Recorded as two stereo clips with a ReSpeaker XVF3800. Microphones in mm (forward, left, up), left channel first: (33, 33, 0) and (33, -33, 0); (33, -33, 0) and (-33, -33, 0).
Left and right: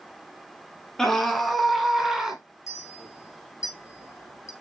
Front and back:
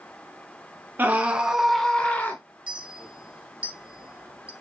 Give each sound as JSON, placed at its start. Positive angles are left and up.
{"t": 1.0, "sound": "a scream", "azimuth_deg": 165, "distance_m": 1.8}
{"t": 2.7, "sound": "a clink", "azimuth_deg": 115, "distance_m": 1.3}